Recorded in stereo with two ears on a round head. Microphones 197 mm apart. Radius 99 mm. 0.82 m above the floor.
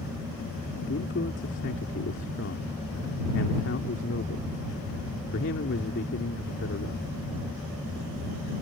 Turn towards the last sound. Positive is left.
turn(degrees=55)  # may be behind; listen again after turning